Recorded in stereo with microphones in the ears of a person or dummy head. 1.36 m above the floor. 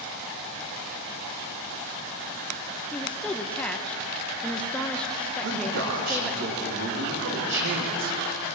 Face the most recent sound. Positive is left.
turn(degrees=-60)  # may be behind; listen again after turning